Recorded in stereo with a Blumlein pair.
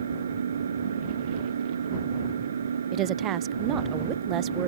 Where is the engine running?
70° right.